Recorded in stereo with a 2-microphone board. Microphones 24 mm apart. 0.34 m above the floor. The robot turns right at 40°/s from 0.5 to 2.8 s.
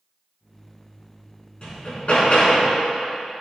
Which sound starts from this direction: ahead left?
Hammering, at 1.6 s.